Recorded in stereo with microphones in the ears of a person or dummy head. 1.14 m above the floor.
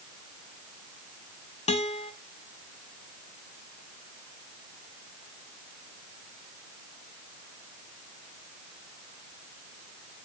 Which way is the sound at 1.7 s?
35° left (ahead or behind).